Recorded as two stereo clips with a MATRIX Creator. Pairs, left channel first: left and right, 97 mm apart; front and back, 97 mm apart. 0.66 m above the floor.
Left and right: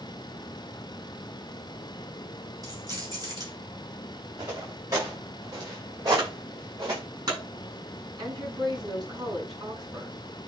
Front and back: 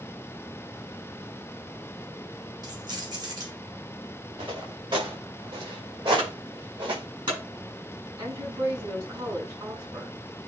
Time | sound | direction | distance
2.6 | keys jangling | 135° right | 3 m
4.4 | footsteps | 145° right | 6.5 m
6.2 | a clunk | 140° right | 7 m
8.2 | a woman speaking | 135° right | 7 m